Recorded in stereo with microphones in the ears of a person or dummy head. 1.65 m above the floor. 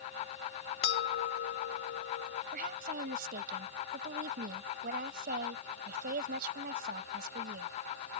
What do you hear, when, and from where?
0.8 s a bell: 65° left (ahead or behind)
2.5 s a woman speaking: 50° right (ahead or behind)